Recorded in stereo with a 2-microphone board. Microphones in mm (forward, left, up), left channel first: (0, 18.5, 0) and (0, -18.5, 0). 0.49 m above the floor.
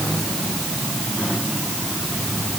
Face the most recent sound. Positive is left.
No sound to turn to.